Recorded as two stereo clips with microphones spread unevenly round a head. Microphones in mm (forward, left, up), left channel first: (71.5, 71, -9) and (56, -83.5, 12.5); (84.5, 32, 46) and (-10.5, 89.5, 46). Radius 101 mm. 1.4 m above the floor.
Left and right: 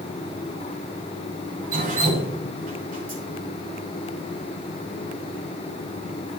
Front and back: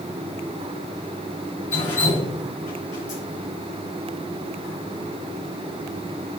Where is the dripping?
65° right, 9 m.